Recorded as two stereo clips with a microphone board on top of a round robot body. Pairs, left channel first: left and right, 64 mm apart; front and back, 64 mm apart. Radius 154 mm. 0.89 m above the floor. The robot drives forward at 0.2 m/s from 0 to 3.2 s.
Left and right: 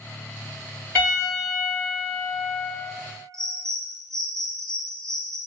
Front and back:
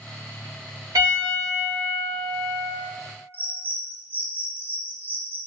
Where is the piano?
150° left, 1.4 m; by 2.7 s 155° left, 1.7 m.